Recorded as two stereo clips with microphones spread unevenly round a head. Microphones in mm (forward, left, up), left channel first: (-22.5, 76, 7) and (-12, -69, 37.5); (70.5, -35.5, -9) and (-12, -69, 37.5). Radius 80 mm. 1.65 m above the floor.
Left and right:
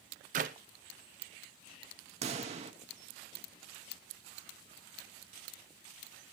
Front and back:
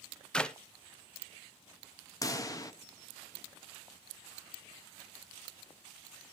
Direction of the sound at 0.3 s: 75° right.